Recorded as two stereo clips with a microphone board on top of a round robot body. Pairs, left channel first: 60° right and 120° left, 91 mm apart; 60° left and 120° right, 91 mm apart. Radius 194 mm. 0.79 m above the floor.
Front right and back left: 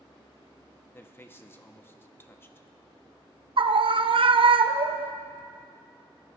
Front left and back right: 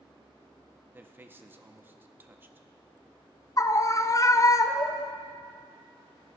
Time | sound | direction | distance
0.9 | a man speaking | 85° right | 1.0 m
3.6 | a scream | 110° left | 0.7 m